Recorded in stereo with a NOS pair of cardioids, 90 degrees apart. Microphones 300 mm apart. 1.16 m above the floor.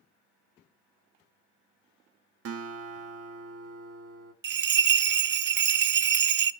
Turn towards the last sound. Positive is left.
turn(degrees=-40)